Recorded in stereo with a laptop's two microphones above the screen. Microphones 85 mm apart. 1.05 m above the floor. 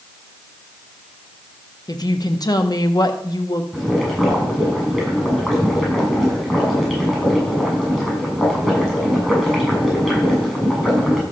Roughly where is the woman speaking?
Left.